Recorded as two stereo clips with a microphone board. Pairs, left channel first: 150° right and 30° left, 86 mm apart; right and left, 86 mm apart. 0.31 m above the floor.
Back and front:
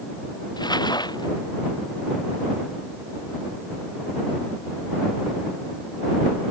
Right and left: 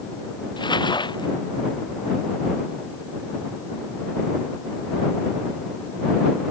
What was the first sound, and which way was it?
Crumpling, 115° right.